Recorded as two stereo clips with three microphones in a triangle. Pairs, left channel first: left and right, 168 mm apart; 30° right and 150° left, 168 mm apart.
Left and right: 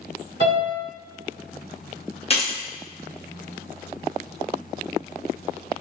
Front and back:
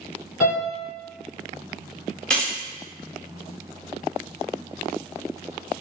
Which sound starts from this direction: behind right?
A piano, at 0.4 s.